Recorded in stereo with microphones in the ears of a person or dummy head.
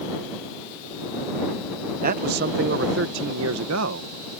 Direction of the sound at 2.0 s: 45° right (ahead or behind).